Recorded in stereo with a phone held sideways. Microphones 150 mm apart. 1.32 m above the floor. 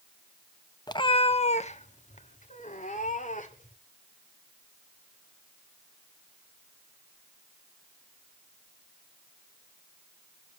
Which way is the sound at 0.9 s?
25° left (ahead or behind).